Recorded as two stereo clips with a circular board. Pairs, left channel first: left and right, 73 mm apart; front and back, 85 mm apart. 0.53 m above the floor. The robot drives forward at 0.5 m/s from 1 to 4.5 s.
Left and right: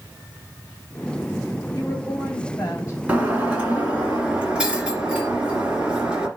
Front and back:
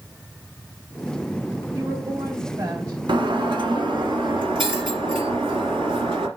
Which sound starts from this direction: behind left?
A woman speaking, at 1.8 s.